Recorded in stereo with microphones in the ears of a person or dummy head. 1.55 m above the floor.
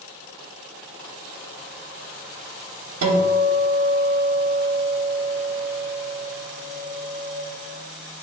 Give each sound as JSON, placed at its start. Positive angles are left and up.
{"t": 3.0, "sound": "a guitar", "side_deg": -75, "distance_m": 1.0}